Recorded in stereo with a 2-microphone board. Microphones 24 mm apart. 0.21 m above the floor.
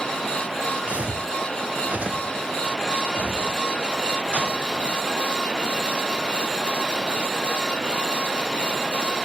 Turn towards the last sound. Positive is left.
turn(degrees=-75)  # may be behind; listen again after turning